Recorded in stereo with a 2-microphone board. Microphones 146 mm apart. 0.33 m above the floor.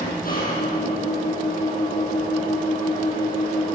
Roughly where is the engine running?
Left.